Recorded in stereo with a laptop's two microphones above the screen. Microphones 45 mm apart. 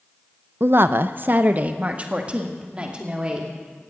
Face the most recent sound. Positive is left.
turn(degrees=-20)  # may be behind; listen again after turning